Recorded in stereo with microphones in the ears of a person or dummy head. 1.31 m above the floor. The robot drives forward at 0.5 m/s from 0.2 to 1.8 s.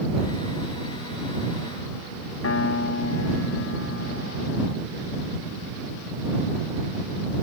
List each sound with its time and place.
2.4 s a piano: 75° left (ahead or behind)